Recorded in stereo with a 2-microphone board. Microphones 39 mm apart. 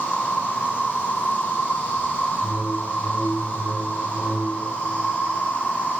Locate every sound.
0.0 s an insect: 90° left, 3 m
2.4 s a whoosh: 70° left (ahead or behind), 1.2 m